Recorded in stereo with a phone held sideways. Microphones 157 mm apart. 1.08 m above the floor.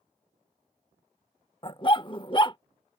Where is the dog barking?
30° left (ahead or behind).